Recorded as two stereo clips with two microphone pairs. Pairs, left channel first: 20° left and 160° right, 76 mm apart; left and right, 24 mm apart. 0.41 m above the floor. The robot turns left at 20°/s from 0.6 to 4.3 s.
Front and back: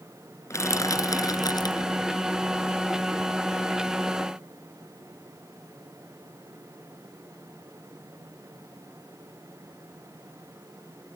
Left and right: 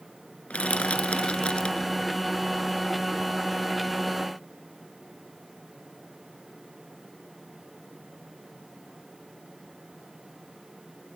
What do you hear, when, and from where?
0.5 s crushing: 65° left; by 1.9 s 40° left